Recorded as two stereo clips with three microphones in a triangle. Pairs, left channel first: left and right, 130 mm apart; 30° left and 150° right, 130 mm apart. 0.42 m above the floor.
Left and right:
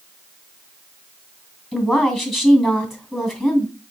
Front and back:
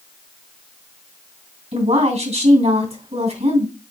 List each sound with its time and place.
1.7 s a woman speaking: straight behind, 2.5 m